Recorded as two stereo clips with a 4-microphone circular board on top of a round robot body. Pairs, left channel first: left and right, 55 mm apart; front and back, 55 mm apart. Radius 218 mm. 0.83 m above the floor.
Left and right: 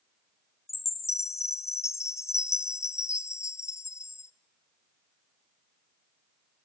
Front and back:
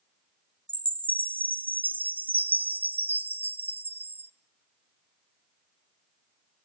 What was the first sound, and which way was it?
A chime, 120° left.